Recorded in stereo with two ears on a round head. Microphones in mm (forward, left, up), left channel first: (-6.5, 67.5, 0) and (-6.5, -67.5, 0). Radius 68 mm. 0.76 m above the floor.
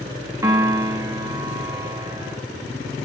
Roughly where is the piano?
Right.